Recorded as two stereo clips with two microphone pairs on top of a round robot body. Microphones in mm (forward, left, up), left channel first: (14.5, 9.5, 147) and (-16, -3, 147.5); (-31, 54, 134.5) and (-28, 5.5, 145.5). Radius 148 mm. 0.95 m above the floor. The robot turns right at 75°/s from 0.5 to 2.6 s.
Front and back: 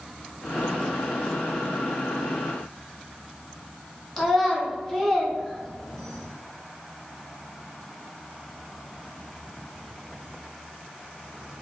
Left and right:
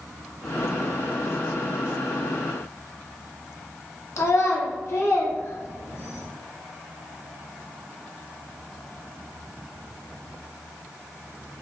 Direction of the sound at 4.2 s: 105° left.